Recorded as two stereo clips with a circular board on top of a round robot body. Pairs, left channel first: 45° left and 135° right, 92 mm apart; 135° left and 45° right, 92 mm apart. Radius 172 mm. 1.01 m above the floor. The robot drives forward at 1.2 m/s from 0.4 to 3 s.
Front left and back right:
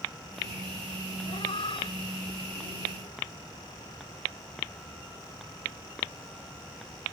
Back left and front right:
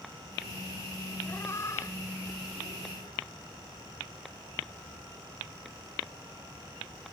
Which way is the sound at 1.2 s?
70° left.